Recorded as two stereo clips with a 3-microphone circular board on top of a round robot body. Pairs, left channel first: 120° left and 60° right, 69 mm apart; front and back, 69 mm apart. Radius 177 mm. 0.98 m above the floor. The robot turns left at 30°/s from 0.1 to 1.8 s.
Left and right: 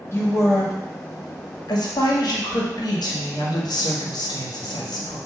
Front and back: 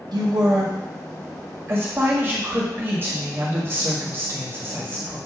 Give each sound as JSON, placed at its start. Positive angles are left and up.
{"t": 0.1, "sound": "a woman speaking", "azimuth_deg": 175, "distance_m": 1.8}